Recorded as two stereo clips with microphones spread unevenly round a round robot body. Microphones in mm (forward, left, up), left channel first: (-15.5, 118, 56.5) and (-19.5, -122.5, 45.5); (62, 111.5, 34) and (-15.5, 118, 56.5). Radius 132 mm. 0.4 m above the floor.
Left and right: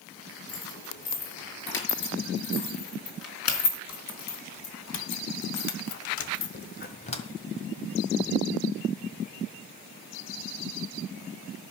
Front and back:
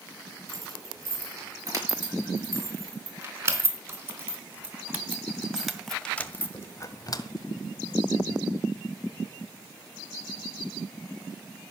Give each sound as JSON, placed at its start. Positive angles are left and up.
{"t": 0.5, "sound": "keys jangling", "azimuth_deg": 130, "distance_m": 7.0}